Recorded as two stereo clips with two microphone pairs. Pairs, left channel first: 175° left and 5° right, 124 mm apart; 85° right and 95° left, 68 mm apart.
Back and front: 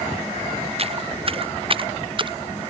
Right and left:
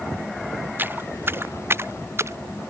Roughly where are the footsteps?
Ahead left.